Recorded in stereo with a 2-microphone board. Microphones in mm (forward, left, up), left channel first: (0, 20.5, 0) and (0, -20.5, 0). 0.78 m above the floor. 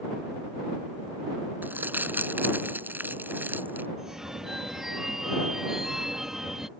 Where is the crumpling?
55° right (ahead or behind).